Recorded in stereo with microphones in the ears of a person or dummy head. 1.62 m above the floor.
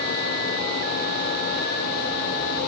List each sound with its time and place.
Only background noise.